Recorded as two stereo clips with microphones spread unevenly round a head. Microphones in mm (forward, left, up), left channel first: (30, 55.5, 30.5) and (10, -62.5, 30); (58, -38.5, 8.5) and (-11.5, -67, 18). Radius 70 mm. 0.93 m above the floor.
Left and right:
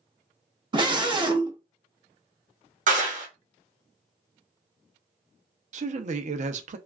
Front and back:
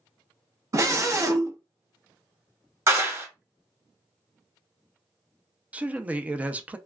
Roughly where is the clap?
Right.